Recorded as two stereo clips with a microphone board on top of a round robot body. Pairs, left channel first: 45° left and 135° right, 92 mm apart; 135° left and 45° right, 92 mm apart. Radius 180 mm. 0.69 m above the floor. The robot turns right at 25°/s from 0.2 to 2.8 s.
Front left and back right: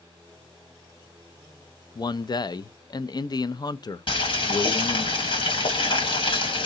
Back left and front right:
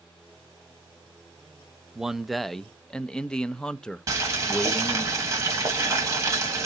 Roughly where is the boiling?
Ahead.